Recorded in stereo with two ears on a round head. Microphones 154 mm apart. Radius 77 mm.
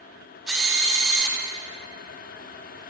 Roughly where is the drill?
Centre.